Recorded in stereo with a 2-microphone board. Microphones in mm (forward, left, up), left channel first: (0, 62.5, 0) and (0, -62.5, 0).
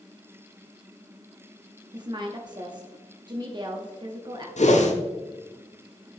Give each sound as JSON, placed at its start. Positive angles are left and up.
{"t": 1.9, "sound": "a woman speaking", "side_deg": -35, "distance_m": 0.9}
{"t": 4.6, "sound": "a whoosh", "side_deg": 65, "distance_m": 1.0}